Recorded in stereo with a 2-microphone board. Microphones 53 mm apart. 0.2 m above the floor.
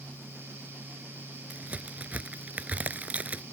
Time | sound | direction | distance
1.5 | a crack | 30° right (ahead or behind) | ?